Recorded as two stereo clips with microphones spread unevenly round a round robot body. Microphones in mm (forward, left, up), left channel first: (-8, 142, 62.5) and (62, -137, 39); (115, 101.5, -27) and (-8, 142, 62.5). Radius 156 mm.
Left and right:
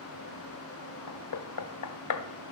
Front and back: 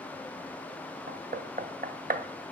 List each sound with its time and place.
1.1 s knocking: 115° left, 0.9 m